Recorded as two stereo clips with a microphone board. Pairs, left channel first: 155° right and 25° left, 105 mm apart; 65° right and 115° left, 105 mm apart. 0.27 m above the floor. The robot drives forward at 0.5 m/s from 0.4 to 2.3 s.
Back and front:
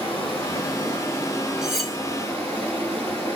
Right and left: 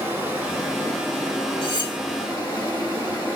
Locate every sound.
0.0 s running water: straight behind, 2.0 m
1.6 s cutlery clinking: 60° right, 0.9 m; by 2.0 s 75° right, 0.9 m